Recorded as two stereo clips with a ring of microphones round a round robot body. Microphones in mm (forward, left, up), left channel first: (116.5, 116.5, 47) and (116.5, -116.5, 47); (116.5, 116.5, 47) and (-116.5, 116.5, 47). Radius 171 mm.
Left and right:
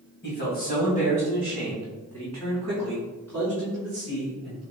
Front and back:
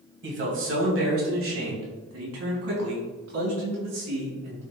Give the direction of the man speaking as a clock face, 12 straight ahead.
7 o'clock.